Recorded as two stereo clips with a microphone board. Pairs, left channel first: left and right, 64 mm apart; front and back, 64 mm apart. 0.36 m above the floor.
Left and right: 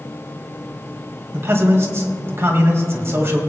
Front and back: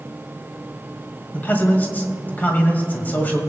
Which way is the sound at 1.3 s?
55° right.